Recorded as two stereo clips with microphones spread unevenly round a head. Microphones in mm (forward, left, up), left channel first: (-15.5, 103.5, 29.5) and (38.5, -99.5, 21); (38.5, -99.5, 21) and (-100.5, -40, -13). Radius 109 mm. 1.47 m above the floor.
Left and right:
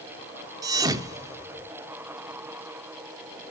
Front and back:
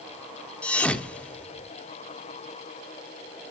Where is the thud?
25° right, 1.1 m.